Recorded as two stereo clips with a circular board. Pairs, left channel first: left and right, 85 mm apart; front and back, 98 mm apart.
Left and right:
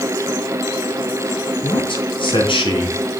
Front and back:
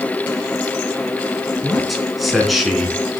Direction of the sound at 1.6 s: 90° left.